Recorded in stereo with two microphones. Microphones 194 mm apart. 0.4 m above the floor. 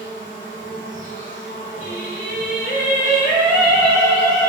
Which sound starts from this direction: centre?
Singing, at 1.8 s.